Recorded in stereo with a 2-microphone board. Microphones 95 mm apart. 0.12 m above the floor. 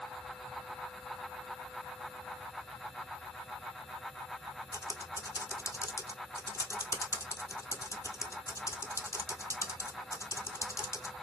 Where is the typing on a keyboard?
35° left (ahead or behind), 0.7 m.